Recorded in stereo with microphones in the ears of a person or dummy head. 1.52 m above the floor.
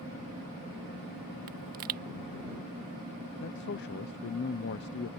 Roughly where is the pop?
Right.